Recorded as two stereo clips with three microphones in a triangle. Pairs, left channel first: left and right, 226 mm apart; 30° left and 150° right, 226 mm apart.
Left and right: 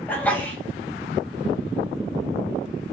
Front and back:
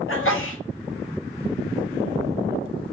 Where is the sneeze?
10° left, 0.9 m.